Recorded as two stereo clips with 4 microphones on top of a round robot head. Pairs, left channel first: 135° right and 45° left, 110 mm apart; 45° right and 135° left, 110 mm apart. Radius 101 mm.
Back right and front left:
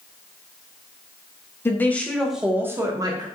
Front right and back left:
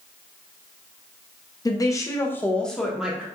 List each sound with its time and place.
1.6 s a woman speaking: 75° right, 1.0 m; by 3.2 s 60° left, 1.0 m